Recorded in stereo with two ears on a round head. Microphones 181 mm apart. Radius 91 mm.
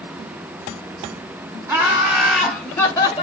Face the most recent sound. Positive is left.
turn(degrees=25)  # may be behind; listen again after turning